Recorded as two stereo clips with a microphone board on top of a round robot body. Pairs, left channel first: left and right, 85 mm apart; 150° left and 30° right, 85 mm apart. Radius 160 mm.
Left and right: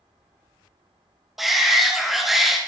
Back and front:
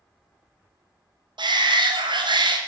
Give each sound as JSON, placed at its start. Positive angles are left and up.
{"t": 1.4, "sound": "a shout", "azimuth_deg": 0, "distance_m": 2.0}